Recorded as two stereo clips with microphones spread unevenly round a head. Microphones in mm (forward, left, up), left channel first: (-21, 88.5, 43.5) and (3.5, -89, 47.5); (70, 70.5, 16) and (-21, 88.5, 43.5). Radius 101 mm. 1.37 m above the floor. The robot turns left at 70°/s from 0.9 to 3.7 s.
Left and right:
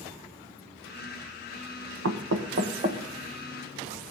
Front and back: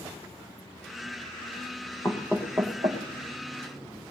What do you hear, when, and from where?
2.0 s knocking: 85° right, 1.1 m; by 3.0 s 155° right, 1.1 m